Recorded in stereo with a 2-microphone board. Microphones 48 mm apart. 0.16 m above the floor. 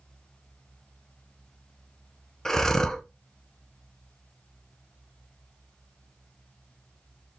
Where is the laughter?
No laughter in this recording.